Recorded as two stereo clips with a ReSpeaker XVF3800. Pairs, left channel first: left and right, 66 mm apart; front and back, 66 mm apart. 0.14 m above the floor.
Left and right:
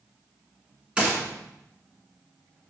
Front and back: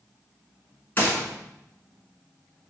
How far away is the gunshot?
About 1.4 m.